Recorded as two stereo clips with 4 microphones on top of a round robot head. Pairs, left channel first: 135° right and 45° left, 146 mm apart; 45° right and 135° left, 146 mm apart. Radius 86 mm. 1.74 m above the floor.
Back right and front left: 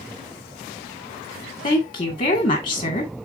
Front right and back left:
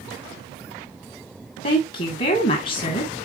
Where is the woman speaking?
80° right, 2 m.